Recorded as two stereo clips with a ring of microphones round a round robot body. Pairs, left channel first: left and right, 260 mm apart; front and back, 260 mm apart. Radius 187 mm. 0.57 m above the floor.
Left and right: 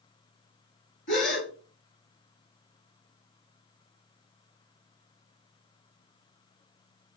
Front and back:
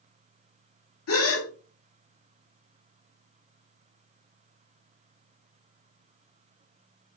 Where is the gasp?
30° left, 0.8 m.